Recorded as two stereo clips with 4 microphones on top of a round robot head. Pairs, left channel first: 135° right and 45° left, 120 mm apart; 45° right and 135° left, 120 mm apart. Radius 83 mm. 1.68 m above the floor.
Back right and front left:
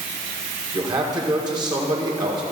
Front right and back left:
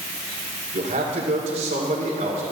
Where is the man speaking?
95° left, 1.9 m.